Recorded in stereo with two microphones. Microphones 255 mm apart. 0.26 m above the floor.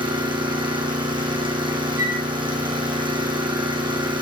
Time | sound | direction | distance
0.0 | an engine running | 20° right (ahead or behind) | 4 m
2.0 | a flute | 45° left (ahead or behind) | 7.5 m